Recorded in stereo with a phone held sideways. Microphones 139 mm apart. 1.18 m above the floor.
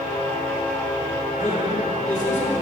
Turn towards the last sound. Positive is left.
turn(degrees=65)  # may be behind; listen again after turning